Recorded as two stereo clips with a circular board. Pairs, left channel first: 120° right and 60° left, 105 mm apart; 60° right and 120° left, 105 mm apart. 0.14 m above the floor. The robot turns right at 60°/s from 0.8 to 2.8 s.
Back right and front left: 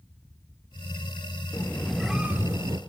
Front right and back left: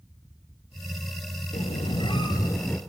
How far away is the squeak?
About 1.6 m.